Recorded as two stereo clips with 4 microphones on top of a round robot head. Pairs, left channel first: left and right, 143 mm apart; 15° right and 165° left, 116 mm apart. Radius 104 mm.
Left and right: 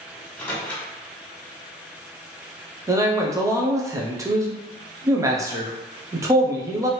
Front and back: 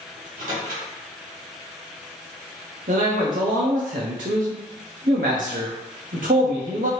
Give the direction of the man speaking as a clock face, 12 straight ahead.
5 o'clock.